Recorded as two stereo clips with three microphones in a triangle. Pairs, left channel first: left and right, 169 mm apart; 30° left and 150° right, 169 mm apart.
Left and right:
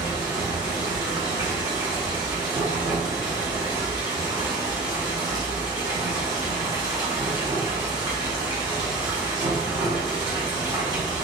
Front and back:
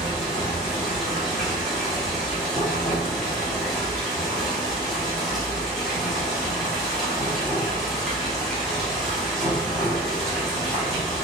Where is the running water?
60° right, 1.1 m.